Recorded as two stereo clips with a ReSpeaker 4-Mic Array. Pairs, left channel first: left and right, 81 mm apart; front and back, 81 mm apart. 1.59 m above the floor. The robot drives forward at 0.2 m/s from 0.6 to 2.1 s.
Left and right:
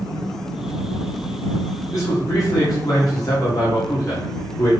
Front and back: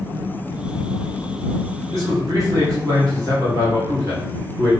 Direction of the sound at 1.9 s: 135° left.